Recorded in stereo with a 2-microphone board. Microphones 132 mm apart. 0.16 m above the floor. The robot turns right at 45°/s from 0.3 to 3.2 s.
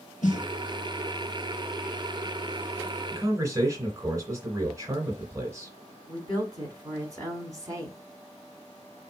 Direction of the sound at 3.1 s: 20° right (ahead or behind).